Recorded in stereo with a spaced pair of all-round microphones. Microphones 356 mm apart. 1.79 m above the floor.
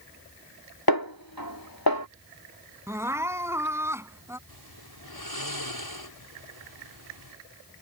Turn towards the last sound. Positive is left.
turn(degrees=85)